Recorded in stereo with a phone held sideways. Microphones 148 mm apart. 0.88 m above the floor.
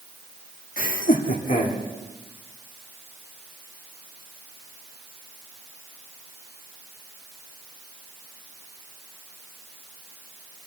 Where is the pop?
I don't hear a pop.